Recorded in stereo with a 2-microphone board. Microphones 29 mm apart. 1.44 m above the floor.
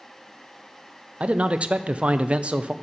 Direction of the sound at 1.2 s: 40° right (ahead or behind).